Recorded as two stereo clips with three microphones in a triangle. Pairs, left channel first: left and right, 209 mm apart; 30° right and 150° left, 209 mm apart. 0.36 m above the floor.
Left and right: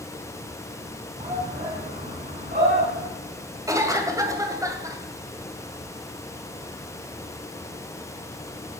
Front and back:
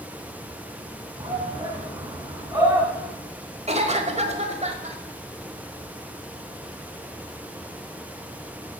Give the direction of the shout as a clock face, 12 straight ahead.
5 o'clock.